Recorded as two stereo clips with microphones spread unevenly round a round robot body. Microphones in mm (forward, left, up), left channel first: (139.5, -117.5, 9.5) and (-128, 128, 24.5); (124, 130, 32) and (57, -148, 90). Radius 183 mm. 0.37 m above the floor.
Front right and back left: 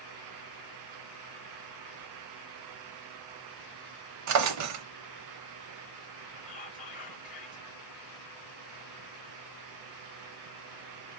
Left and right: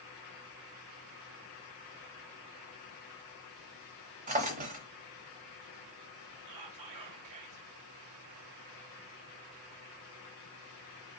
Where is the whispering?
110° right, 2 m.